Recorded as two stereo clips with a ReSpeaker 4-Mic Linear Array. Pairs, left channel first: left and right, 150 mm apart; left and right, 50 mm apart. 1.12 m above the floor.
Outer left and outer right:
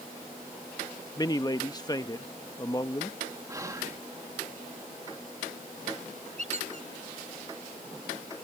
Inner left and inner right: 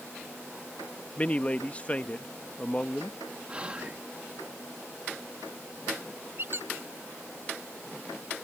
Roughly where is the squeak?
Right.